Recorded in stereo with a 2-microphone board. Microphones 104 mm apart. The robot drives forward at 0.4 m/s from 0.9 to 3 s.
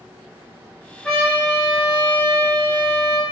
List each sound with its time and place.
1.0 s a trumpet: centre (ahead or behind), 1.6 m